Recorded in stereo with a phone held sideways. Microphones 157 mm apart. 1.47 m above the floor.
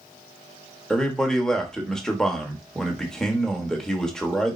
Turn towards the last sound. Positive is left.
turn(degrees=5)  # may be behind; listen again after turning